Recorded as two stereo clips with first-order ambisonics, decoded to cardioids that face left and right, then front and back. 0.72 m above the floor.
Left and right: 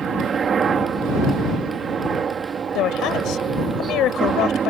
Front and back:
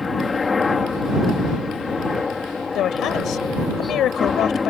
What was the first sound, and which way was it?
A helicopter, 60° right.